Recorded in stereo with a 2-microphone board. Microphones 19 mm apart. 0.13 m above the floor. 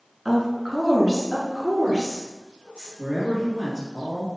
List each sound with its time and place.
0.2 s a woman speaking: 5° left (ahead or behind), 1.3 m; by 2.9 s 65° right (ahead or behind), 2.5 m
3.0 s a man speaking: 5° right (ahead or behind), 1.8 m